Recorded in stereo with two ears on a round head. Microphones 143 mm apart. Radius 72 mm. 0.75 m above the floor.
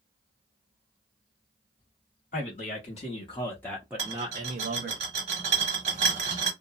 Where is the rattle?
45° right (ahead or behind), 1.0 m.